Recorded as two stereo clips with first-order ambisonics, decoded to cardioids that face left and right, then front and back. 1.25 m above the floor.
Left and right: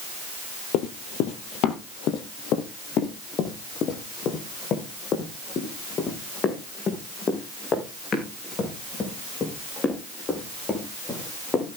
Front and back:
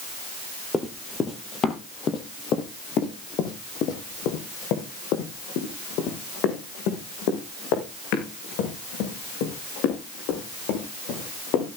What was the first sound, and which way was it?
Running footsteps, 75° left.